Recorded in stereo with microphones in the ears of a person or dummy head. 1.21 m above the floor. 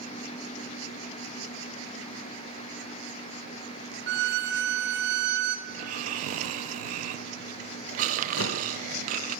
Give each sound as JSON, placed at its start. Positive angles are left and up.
{"t": 4.1, "sound": "a violin", "side_deg": -55, "distance_m": 0.5}
{"t": 5.7, "sound": "snoring", "side_deg": -40, "distance_m": 0.6}
{"t": 8.4, "sound": "a whoosh", "side_deg": 70, "distance_m": 1.2}